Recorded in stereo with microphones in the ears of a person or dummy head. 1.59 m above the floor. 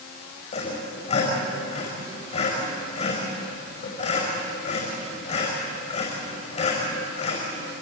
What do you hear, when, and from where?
0.5 s sawing: 40° left (ahead or behind), 5.5 m